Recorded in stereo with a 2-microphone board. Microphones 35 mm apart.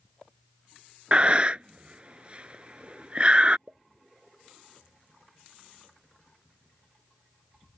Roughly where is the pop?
Right.